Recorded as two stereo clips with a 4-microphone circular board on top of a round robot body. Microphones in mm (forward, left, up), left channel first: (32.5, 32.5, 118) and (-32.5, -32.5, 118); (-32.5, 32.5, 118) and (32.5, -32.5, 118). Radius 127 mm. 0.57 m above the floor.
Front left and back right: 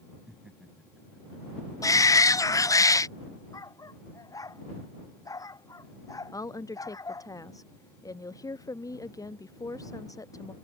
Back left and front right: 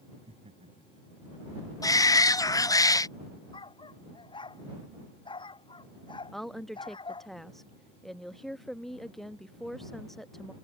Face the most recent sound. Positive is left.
turn(degrees=50)